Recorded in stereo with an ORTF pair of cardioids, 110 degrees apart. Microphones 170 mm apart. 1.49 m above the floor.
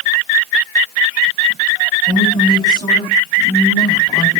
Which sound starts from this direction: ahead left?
A woman speaking, at 2.1 s.